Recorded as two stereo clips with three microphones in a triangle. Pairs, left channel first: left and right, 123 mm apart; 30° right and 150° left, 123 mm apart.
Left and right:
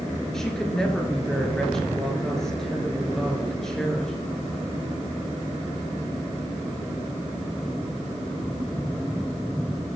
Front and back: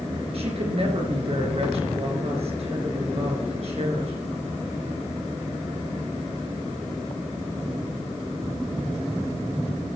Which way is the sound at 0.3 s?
175° left.